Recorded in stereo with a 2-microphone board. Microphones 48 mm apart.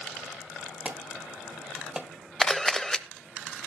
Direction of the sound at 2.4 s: 20° left (ahead or behind).